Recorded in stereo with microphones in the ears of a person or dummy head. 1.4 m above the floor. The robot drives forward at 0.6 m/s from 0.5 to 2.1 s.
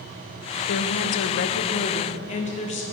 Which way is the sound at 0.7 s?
60° left (ahead or behind).